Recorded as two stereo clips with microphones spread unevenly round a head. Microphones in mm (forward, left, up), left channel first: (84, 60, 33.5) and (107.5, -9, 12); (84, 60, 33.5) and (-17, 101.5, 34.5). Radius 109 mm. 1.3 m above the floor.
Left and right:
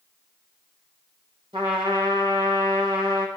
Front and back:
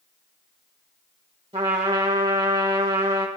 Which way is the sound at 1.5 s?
135° right.